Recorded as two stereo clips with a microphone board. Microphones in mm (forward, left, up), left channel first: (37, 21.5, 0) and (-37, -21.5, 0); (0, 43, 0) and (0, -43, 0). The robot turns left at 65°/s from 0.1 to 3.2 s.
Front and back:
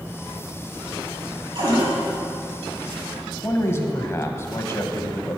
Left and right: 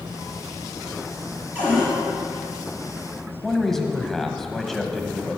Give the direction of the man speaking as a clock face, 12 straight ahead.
12 o'clock.